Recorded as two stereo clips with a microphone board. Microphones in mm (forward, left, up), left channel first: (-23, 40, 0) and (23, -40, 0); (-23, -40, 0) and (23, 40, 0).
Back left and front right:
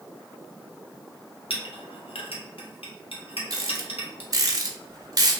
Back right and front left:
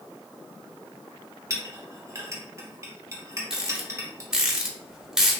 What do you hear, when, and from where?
1.5 s a clink: 120° left, 0.6 m
3.5 s a rattle: 25° right, 0.5 m